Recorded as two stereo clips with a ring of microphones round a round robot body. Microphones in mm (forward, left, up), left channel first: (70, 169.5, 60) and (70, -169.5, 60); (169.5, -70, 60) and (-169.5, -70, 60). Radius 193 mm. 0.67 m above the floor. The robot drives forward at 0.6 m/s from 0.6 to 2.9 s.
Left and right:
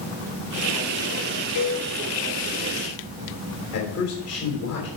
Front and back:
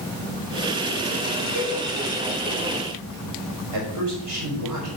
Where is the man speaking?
150° left, 4 m.